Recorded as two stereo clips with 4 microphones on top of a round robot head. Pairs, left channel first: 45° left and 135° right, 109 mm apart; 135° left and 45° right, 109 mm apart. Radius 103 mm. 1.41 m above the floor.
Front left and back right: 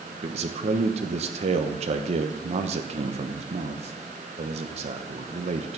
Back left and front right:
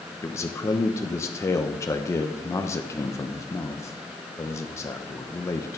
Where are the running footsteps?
I don't hear running footsteps.